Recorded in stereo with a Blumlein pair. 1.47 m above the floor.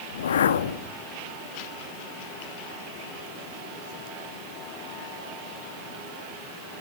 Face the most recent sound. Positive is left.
turn(degrees=65)